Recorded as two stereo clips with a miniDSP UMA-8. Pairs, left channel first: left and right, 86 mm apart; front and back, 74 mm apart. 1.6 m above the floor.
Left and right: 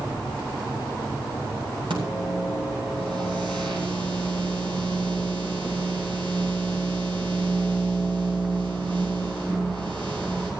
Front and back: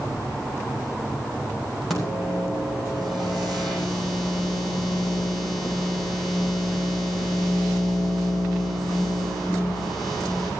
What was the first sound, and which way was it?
A microwave, 90° right.